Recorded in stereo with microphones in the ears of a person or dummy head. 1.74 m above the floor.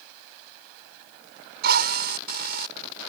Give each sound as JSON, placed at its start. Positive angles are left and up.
{"t": 1.6, "sound": "a drill", "side_deg": -60}